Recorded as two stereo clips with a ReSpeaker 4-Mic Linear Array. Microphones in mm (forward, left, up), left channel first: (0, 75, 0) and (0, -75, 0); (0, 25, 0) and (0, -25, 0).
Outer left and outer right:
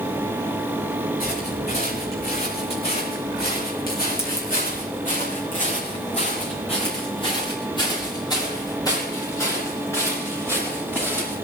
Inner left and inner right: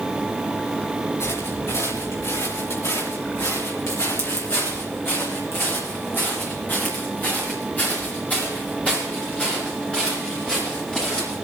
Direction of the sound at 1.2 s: 70° left (ahead or behind).